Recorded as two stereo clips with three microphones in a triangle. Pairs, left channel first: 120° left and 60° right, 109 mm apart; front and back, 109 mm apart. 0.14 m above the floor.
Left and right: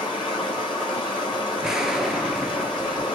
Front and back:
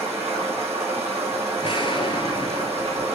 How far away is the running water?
About 3 m.